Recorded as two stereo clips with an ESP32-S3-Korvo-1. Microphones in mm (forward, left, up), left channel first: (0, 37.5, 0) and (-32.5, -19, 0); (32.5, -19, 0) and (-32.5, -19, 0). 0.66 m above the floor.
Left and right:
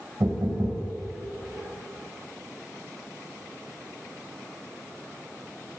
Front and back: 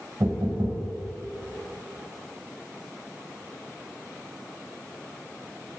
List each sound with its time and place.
0.2 s knocking: 160° right, 2.5 m